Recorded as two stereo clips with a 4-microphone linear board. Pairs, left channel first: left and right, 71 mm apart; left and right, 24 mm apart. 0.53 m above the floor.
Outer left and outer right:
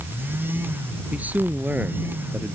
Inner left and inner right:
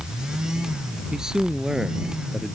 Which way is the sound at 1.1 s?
25° right (ahead or behind).